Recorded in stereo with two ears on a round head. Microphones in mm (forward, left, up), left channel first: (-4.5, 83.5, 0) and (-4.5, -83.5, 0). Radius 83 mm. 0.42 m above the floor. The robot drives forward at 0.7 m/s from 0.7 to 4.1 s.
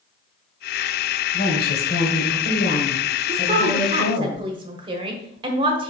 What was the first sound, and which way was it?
A woman speaking, 50° left (ahead or behind).